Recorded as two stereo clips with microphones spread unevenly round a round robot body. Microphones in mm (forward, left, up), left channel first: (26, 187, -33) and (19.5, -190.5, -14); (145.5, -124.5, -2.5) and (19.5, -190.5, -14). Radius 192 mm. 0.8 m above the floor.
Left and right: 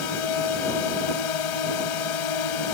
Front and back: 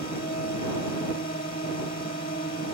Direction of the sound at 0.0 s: 90° left.